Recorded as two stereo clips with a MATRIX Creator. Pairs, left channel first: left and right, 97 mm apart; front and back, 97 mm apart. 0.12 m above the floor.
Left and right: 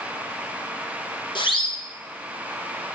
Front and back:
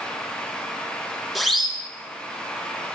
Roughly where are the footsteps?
No footsteps in this recording.